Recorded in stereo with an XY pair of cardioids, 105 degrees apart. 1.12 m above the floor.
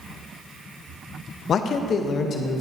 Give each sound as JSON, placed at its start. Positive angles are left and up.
{"t": 1.5, "sound": "a man speaking", "azimuth_deg": 55, "distance_m": 0.6}